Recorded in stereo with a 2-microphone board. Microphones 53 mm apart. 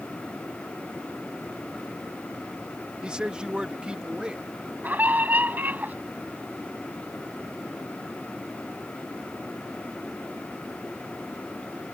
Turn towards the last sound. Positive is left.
turn(degrees=-35)  # may be behind; listen again after turning